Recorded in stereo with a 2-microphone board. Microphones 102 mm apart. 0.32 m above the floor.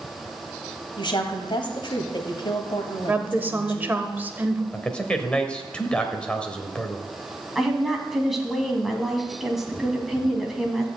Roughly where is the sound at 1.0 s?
Left.